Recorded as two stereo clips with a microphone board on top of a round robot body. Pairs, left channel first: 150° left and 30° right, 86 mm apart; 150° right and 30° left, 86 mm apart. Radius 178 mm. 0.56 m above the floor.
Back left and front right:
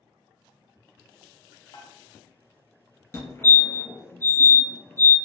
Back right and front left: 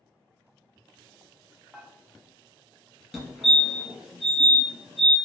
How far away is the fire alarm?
About 1.8 m.